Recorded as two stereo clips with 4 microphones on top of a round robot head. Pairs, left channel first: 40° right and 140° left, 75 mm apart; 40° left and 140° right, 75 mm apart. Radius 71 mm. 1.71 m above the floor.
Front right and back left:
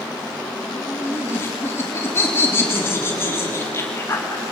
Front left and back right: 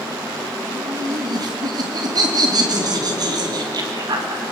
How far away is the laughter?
About 3.5 m.